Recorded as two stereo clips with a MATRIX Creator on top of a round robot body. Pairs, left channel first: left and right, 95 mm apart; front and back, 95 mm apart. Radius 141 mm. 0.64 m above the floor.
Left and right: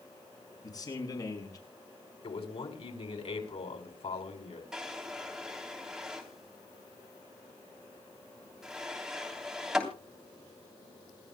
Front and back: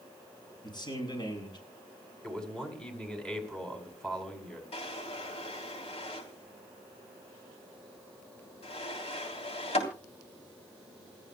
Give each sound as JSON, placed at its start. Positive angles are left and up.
{"t": 0.6, "sound": "a man speaking", "azimuth_deg": 40, "distance_m": 7.5}
{"t": 2.2, "sound": "a man speaking", "azimuth_deg": 85, "distance_m": 5.5}
{"t": 4.7, "sound": "a drawer", "azimuth_deg": -5, "distance_m": 3.5}